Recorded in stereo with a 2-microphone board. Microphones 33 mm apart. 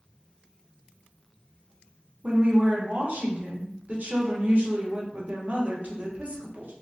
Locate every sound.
2.2 s a woman speaking: 55° right (ahead or behind), 1.0 m